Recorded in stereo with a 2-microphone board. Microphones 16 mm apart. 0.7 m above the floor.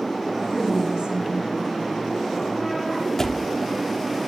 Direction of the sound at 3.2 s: 25° left (ahead or behind).